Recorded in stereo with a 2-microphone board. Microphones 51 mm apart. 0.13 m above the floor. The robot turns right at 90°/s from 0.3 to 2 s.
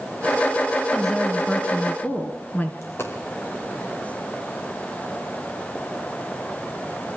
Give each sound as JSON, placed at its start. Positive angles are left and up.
{"t": 0.9, "sound": "a woman speaking", "azimuth_deg": -5, "distance_m": 1.7}
{"t": 2.8, "sound": "a dropped coin", "side_deg": 55, "distance_m": 5.0}